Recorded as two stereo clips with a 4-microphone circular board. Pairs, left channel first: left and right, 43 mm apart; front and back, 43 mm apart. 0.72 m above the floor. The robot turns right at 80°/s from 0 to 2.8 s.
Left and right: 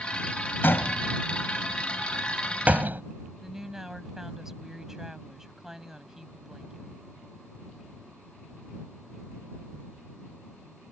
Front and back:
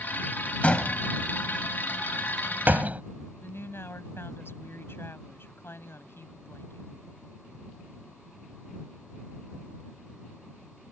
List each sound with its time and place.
0.6 s a door slam: 55° left; by 3.0 s 130° right
3.4 s a woman speaking: 10° right